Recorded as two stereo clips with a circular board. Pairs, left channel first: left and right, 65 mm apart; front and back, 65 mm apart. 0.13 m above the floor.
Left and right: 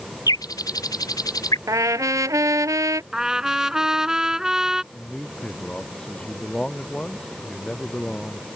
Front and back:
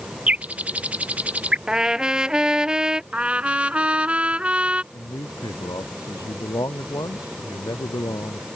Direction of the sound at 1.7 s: 105° right.